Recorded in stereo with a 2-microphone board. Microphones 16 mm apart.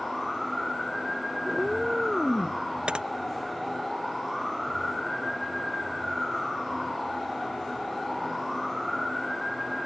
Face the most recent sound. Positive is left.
turn(degrees=-75)  # may be behind; listen again after turning